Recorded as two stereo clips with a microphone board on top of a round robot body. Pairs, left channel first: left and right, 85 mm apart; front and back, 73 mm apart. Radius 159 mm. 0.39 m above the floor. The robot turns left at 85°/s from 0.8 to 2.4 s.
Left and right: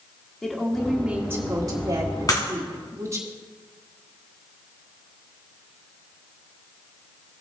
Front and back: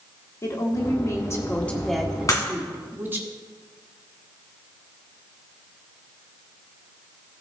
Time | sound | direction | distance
0.4 | a woman speaking | 10° left | 1.7 m
2.3 | breaking glass | 45° left | 1.8 m